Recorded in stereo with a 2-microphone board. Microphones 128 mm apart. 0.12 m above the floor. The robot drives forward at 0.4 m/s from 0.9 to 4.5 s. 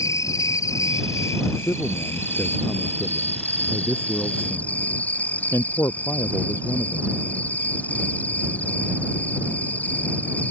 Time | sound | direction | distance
0.0 | an insect | 25° left (ahead or behind) | ?
1.6 | a man speaking | 15° left (ahead or behind) | ?